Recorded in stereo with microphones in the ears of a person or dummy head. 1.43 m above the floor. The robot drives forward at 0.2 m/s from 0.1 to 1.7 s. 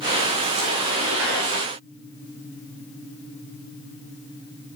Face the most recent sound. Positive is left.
No sound to turn to.